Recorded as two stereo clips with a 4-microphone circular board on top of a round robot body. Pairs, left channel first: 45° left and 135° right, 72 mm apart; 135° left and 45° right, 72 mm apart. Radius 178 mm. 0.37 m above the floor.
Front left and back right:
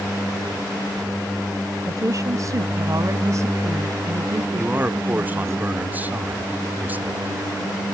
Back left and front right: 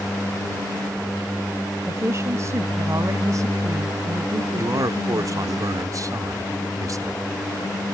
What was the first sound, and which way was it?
A woman speaking, 95° right.